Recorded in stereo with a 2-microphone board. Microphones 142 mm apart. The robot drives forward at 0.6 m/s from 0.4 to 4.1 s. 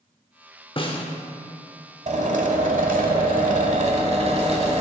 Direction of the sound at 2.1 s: 60° right (ahead or behind).